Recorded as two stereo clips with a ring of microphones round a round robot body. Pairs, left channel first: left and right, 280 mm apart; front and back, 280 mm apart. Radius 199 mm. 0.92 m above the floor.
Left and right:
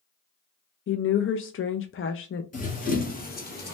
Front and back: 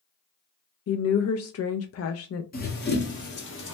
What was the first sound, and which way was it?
A woman speaking, 40° left.